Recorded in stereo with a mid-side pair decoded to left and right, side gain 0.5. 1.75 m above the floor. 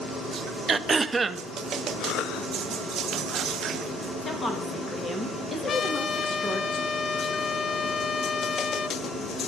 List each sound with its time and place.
0.7 s throat clearing: 25° right, 0.6 m
2.0 s a cough: 70° left, 0.6 m
4.2 s a woman speaking: 25° left, 3 m
5.7 s a trumpet: 45° left, 0.5 m